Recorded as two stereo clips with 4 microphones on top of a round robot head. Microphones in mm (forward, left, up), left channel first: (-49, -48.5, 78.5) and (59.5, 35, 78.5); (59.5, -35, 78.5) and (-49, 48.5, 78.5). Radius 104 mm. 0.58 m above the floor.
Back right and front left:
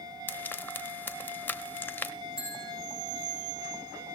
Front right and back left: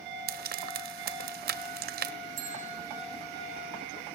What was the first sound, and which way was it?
Frying, 140° left.